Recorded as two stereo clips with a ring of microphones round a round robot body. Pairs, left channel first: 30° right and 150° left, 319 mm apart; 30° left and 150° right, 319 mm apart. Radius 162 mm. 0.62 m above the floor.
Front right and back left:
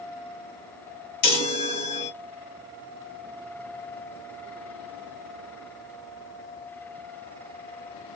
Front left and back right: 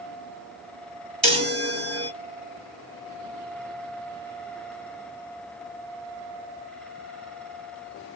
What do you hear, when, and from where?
1.2 s a chime: 55° right, 1.5 m